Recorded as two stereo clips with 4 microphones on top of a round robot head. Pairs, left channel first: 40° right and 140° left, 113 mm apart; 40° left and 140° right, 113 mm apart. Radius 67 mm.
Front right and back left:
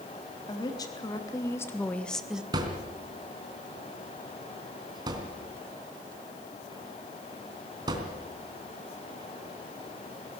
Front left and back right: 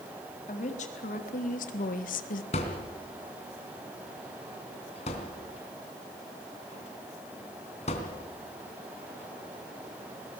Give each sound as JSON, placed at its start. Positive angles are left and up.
{"t": 0.5, "sound": "a woman speaking", "azimuth_deg": 15, "distance_m": 4.0}
{"t": 2.5, "sound": "a thud", "azimuth_deg": 80, "distance_m": 3.0}